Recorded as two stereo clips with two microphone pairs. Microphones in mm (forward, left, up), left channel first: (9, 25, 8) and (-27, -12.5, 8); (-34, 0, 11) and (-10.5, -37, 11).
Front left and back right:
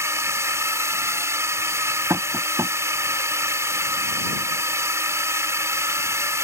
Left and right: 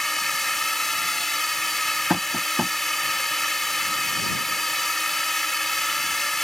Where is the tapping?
135° right.